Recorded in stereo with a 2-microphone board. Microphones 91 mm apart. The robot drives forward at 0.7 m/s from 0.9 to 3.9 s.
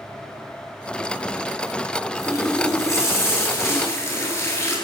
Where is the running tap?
30° left (ahead or behind), 9.5 m.